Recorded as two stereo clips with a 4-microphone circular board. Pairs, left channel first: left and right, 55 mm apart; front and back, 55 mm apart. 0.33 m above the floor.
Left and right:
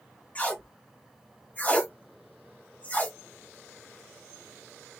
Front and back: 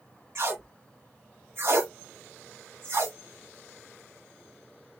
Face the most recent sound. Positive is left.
turn(degrees=150)